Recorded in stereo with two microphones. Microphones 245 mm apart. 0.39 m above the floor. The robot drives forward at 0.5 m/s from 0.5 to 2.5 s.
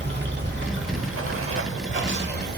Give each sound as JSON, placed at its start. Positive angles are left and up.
{"t": 0.0, "sound": "running water", "side_deg": -45, "distance_m": 0.8}